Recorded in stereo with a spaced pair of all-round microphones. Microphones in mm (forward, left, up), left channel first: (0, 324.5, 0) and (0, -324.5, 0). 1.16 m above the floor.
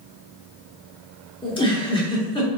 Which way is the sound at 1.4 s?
10° left (ahead or behind).